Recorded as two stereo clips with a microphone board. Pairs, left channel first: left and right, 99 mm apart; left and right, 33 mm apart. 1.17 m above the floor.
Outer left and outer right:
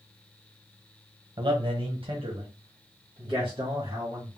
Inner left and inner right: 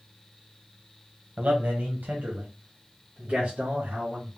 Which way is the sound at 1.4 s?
55° right (ahead or behind).